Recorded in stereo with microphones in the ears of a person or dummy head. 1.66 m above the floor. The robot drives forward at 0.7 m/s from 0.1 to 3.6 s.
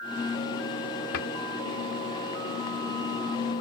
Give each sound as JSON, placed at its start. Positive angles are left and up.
{"t": 1.1, "sound": "a cupboard door", "side_deg": 70}